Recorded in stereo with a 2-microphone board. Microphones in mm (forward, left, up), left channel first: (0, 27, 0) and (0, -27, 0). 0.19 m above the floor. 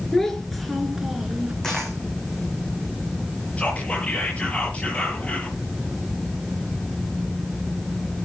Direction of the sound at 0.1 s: 5° left (ahead or behind).